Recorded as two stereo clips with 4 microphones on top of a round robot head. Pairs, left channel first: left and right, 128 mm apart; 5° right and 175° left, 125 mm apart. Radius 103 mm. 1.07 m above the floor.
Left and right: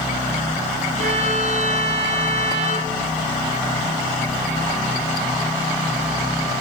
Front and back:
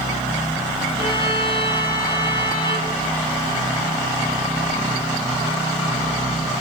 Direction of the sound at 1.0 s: 55° right.